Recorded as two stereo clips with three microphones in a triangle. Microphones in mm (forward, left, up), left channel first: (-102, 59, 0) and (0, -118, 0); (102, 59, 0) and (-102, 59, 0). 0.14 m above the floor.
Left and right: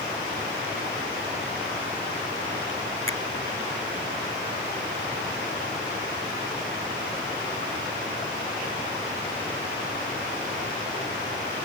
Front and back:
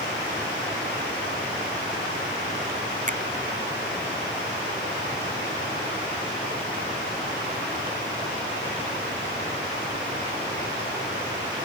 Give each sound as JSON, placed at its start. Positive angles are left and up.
{"t": 3.1, "sound": "a finger snap", "azimuth_deg": 130}